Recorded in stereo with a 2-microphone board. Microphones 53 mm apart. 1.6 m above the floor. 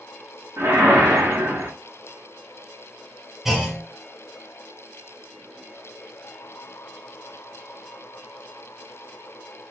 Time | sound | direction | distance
0.6 | a whoosh | 60° right (ahead or behind) | 0.9 m
3.5 | a clunk | 10° right (ahead or behind) | 0.9 m